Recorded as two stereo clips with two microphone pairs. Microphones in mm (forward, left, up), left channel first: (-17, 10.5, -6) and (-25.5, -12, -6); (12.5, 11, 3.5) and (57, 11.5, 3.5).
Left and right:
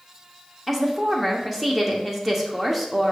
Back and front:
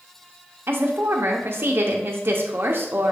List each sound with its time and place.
0.7 s a woman speaking: 30° right, 0.6 m